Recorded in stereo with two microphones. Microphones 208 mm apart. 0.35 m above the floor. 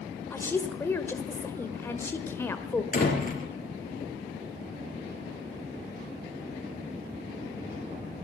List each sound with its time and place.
0.3 s a woman speaking: 10° left (ahead or behind), 1.2 m
2.9 s a door slam: 40° left (ahead or behind), 4.5 m